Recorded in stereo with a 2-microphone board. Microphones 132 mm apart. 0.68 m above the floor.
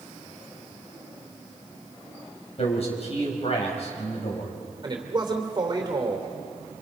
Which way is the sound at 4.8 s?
35° right (ahead or behind).